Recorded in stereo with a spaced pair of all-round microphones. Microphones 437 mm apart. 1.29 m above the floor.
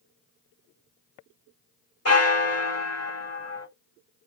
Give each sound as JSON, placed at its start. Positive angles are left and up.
{"t": 2.0, "sound": "a bell", "side_deg": 35, "distance_m": 1.3}